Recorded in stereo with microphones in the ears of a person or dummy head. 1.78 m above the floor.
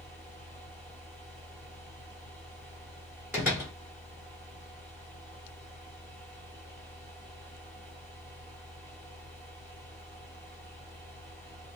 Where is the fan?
5° right (ahead or behind), 1.4 m.